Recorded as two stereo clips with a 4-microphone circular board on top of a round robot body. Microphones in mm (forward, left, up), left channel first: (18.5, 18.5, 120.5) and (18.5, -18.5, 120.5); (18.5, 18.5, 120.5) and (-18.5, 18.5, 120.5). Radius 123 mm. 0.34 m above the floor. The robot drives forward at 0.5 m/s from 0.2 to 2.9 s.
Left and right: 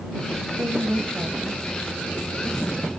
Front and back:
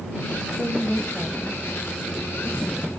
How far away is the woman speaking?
About 3 m.